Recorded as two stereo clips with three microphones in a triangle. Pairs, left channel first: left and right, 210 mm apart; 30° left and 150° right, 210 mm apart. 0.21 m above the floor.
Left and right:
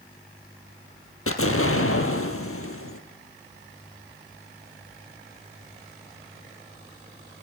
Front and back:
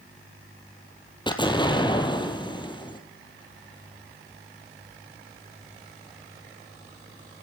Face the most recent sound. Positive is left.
turn(degrees=100)